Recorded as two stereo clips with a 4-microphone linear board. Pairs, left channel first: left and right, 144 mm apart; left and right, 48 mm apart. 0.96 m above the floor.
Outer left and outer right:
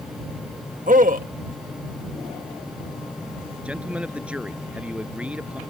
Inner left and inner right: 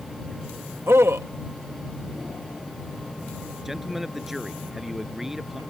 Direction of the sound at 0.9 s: 70° right (ahead or behind).